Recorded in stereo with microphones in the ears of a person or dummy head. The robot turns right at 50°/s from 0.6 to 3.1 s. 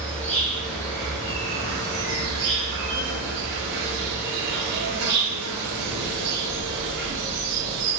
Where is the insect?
175° left, 0.7 m; by 8.0 s 60° right, 0.7 m.